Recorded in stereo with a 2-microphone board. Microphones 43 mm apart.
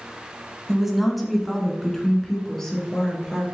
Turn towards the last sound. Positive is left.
turn(degrees=15)  # may be behind; listen again after turning